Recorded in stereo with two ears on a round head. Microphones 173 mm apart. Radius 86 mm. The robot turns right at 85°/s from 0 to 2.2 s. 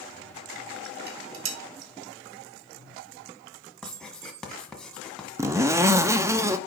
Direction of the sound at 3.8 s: 5° left (ahead or behind).